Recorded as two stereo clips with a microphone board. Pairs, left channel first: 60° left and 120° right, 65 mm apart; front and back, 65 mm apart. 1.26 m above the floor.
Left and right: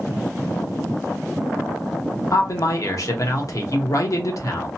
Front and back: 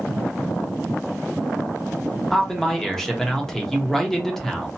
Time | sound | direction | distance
2.3 | a man speaking | 85° left | 0.8 m